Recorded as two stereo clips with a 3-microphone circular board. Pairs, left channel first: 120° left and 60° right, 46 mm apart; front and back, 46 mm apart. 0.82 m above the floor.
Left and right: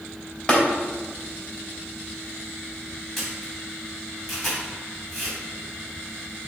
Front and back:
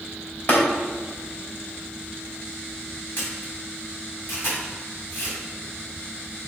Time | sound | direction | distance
0.5 | tapping | 50° left | 2.5 m
3.2 | a camera shutter | 35° left | 3 m